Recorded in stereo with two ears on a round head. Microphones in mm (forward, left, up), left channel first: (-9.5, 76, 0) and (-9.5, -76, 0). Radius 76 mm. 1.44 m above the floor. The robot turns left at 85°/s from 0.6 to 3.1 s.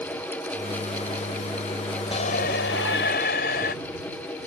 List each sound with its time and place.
2.1 s a shout: 145° left; by 3.8 s 60° left